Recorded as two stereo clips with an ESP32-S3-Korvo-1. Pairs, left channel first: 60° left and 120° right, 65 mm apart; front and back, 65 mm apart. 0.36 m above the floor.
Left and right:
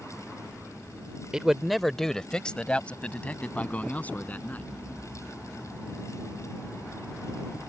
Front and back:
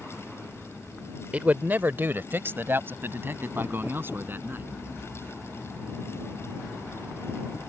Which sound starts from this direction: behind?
A man speaking, at 1.3 s.